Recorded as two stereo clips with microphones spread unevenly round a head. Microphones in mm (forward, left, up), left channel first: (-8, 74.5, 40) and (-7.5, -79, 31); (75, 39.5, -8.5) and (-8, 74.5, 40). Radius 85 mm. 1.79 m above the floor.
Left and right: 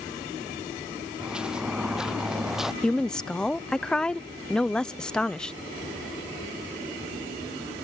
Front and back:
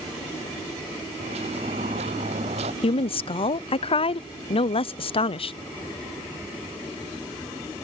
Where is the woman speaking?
5° left.